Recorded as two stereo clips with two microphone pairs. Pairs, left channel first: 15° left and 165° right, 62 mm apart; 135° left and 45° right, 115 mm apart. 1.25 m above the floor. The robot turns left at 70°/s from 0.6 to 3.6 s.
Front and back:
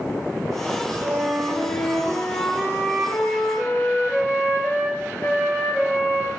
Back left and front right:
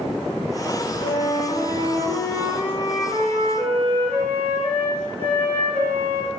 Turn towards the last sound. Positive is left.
turn(degrees=-35)